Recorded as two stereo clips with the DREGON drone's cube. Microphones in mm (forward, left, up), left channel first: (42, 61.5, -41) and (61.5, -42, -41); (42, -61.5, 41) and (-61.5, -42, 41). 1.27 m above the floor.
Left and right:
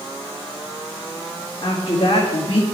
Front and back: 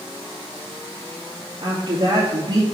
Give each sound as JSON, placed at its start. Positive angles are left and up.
{"t": 1.6, "sound": "a woman speaking", "azimuth_deg": 130, "distance_m": 2.0}